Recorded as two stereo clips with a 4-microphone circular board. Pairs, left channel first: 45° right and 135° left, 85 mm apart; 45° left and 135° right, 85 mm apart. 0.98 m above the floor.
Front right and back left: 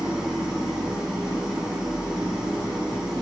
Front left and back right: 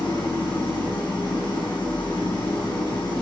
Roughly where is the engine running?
Ahead left.